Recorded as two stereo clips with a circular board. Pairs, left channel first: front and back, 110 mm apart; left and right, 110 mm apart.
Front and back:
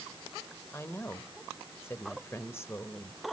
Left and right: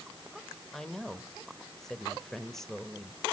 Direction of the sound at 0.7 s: 10° left.